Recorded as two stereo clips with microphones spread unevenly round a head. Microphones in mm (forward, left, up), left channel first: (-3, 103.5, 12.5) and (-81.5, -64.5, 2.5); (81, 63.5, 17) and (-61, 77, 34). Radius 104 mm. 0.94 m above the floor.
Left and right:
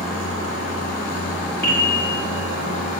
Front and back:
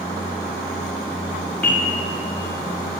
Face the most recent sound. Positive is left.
turn(degrees=75)